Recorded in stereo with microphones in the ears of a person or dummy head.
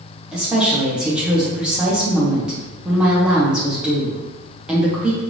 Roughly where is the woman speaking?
Centre.